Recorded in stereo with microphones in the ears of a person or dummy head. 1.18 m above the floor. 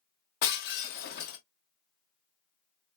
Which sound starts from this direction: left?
Breaking glass, at 0.4 s.